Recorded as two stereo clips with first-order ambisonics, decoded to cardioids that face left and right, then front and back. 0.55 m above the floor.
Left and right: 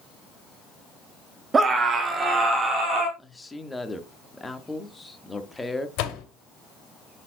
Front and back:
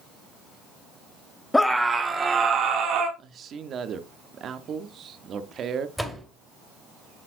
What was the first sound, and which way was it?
A scream, 65° right.